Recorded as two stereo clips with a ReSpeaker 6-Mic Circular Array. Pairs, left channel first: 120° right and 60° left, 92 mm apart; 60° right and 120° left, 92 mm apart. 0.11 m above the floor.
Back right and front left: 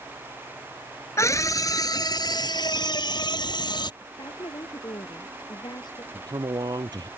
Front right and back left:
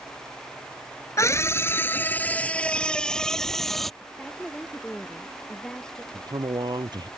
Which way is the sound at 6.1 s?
90° left.